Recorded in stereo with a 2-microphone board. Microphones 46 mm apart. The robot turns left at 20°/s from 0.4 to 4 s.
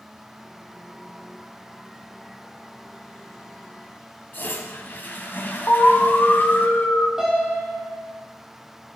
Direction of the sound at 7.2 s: 10° right (ahead or behind).